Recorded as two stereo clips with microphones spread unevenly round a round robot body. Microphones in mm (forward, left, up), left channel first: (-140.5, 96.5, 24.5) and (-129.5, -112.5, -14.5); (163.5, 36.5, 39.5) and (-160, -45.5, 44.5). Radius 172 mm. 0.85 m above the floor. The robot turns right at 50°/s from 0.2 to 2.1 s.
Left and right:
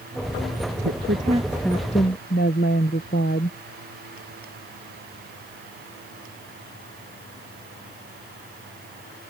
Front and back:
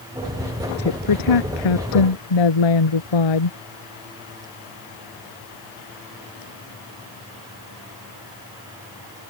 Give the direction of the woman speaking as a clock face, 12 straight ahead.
1 o'clock.